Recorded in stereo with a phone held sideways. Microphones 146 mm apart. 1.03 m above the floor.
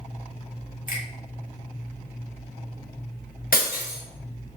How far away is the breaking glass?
About 1.8 m.